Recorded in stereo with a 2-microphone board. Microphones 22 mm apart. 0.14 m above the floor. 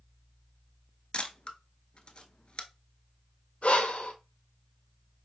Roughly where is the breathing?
Left.